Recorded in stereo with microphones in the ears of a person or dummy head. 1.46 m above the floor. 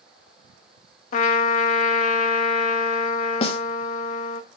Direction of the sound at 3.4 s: 35° left (ahead or behind).